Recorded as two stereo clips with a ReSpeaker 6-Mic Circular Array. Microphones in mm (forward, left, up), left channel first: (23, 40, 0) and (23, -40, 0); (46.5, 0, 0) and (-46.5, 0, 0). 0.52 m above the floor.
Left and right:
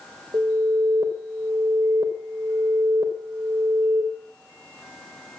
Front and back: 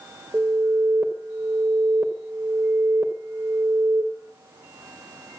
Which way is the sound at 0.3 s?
115° right.